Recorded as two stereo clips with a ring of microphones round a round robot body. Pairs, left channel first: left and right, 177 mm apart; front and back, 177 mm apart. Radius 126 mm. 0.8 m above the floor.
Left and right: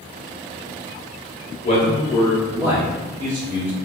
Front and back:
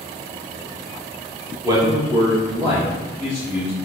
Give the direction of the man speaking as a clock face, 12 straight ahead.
8 o'clock.